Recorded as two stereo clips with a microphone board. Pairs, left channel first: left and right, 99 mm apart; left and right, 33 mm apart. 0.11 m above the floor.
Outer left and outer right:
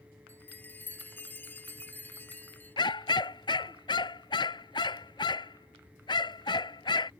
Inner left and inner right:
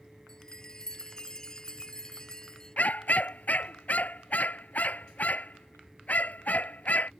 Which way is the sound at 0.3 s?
20° left (ahead or behind).